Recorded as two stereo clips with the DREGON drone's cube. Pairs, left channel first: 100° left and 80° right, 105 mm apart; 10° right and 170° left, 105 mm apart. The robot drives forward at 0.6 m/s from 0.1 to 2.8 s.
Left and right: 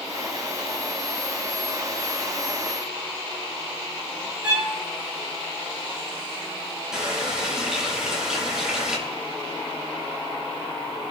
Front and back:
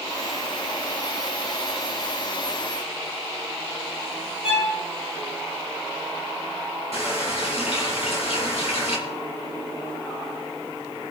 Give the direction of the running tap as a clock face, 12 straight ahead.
12 o'clock.